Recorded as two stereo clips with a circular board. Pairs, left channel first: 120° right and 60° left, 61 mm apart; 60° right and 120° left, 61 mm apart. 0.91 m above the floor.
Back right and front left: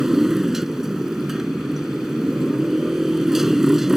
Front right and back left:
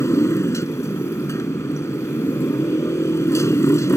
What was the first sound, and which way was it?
A motorcycle, 25° right.